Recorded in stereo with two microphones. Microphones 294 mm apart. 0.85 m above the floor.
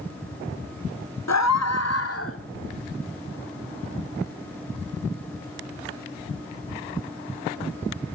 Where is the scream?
65° left (ahead or behind), 1.4 m; by 2.4 s 45° left (ahead or behind), 2.5 m.